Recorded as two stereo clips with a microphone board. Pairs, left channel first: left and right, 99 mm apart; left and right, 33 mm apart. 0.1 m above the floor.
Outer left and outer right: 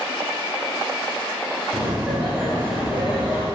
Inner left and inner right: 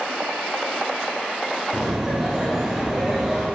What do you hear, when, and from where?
1.7 s laughter: 15° right (ahead or behind), 2 m